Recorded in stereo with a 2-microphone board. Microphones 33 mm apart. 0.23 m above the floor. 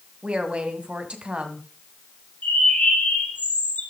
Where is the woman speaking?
40° right (ahead or behind), 1.7 m.